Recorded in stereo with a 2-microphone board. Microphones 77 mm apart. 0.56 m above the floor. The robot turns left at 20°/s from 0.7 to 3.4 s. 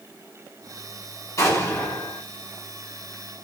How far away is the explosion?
About 1.5 m.